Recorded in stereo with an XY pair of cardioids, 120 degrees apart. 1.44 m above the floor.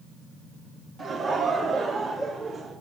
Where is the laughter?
45° right, 3 m; by 2.7 s 50° right, 4.5 m.